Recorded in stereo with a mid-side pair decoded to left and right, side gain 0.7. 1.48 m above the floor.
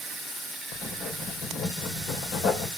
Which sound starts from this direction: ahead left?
Writing, at 0.7 s.